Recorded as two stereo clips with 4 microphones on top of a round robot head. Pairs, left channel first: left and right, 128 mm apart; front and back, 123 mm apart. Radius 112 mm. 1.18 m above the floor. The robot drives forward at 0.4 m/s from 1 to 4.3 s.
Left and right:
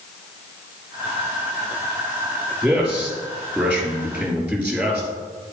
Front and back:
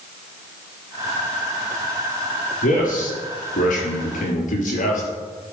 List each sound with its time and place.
2.6 s a man speaking: 10° right, 3.5 m; by 5.1 s 15° right, 3 m